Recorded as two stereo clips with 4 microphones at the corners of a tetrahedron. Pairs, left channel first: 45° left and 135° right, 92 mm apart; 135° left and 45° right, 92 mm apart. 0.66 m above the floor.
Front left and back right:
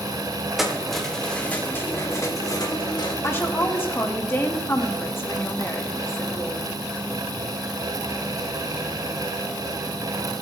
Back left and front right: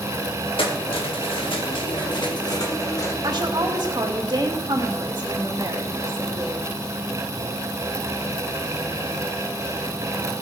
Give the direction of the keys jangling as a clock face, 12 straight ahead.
7 o'clock.